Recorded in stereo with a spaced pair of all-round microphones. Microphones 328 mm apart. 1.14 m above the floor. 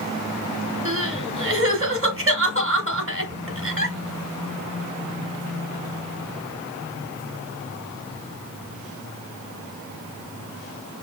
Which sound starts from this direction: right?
Crying, at 0.8 s.